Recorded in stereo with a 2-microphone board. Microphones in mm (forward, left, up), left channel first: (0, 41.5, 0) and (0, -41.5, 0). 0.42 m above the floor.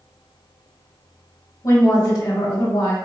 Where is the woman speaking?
40° left (ahead or behind), 1.1 m.